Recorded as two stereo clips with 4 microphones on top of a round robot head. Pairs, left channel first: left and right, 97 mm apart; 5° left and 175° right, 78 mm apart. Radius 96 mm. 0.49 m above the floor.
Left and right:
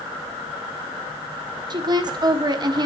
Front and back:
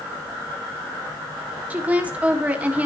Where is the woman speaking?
110° right, 1.3 m.